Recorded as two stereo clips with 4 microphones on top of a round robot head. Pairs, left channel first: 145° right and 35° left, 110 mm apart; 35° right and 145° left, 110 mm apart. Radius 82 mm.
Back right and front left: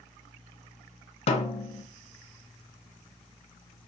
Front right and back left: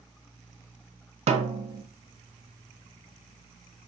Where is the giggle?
I don't hear a giggle.